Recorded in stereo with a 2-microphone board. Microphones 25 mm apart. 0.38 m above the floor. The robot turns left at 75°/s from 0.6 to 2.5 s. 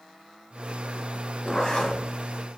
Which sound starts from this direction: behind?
A zipper, at 1.4 s.